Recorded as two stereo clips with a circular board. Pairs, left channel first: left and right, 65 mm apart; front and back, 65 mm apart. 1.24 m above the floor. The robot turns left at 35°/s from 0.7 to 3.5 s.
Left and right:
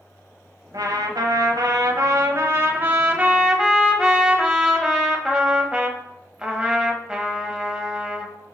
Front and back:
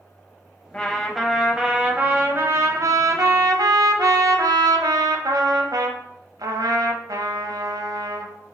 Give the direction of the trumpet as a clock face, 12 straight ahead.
2 o'clock.